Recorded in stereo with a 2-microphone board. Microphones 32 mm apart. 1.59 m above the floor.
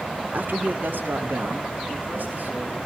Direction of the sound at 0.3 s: 55° right (ahead or behind).